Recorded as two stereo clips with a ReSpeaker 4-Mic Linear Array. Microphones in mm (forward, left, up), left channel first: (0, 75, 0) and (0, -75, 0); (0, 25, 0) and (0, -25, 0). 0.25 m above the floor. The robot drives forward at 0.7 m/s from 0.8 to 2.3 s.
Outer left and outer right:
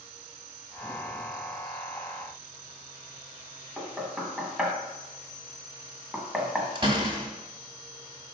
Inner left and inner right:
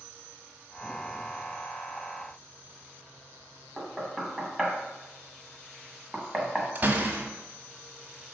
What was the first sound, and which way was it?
Knocking, 5° right (ahead or behind).